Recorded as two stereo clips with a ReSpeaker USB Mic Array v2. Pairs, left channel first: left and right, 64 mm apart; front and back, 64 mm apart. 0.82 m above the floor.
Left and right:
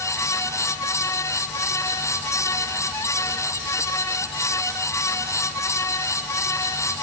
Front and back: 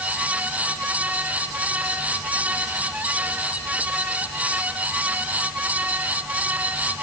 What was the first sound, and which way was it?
Only background noise.